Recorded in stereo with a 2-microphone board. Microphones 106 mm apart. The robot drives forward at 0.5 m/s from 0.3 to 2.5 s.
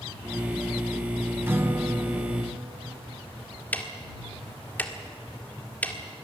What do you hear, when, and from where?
1.5 s a guitar: 20° right (ahead or behind), 0.6 m; by 3.3 s 15° right (ahead or behind), 0.8 m
3.7 s ticking: 15° left (ahead or behind), 1.6 m